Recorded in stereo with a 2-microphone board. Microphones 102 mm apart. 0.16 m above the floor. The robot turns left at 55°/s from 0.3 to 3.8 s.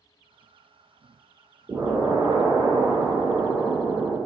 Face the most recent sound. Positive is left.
turn(degrees=-160)